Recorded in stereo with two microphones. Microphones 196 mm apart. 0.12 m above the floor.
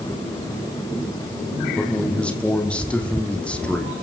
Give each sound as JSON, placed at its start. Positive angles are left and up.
{"t": 1.8, "sound": "a man speaking", "side_deg": 5, "distance_m": 4.5}